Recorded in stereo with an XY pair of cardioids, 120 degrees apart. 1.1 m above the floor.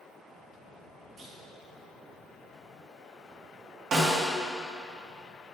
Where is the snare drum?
45° right, 1.7 m.